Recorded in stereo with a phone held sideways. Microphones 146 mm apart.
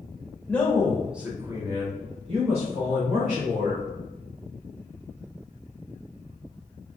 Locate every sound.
0.5 s a man speaking: 10° left (ahead or behind), 1.0 m; by 3.9 s 50° right (ahead or behind), 1.6 m